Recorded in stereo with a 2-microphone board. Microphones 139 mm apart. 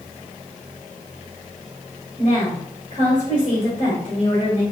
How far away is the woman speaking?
About 1.9 m.